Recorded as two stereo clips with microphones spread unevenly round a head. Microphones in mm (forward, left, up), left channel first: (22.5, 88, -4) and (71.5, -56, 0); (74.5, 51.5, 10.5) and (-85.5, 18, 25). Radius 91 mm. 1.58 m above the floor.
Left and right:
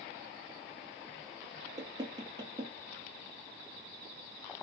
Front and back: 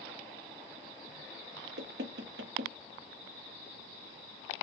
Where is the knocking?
140° right, 0.9 m.